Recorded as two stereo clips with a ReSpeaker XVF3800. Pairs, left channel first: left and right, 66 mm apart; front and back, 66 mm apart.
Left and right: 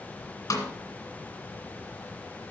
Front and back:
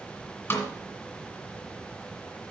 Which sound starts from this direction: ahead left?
A snare drum, at 0.5 s.